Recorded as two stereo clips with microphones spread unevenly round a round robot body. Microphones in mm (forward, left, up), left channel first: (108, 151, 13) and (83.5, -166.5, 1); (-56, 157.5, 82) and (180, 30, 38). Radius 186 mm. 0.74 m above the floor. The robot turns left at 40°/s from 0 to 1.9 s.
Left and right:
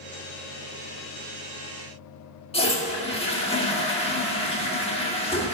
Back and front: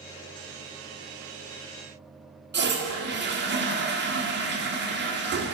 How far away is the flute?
No flute in this recording.